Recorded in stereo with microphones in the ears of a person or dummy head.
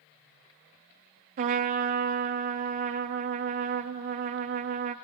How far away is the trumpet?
About 0.5 m.